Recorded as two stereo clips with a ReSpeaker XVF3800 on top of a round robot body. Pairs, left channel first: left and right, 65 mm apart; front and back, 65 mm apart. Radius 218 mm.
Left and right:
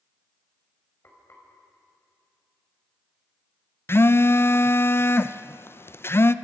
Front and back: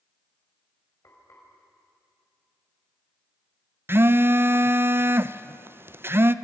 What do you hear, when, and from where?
1.0 s frying: 40° left, 6 m
3.9 s a phone buzzing: 135° left, 0.8 m